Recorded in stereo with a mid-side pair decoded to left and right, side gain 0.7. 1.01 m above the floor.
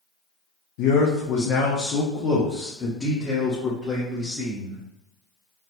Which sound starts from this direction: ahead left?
A man speaking, at 0.8 s.